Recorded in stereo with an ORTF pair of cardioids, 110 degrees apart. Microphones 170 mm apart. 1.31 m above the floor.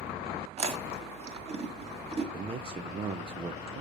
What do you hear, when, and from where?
0.6 s chewing: 35° right, 1.8 m
2.3 s a man speaking: 30° right, 0.6 m